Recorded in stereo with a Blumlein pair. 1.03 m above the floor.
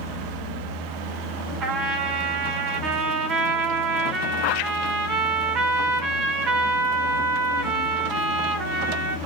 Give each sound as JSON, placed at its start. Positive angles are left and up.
{"t": 1.6, "sound": "a trumpet", "azimuth_deg": -30, "distance_m": 1.3}